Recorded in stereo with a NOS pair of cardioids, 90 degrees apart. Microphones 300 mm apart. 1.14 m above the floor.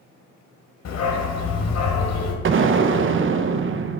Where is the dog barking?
65° left, 2 m.